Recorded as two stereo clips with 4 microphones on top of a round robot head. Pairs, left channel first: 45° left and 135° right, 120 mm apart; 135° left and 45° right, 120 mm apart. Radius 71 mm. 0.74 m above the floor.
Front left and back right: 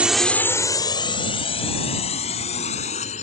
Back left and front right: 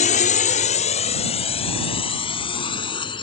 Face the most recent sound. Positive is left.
turn(degrees=80)